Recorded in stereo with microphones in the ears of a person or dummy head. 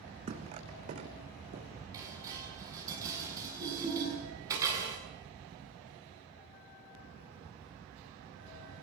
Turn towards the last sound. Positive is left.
turn(degrees=-20)  # may be behind; listen again after turning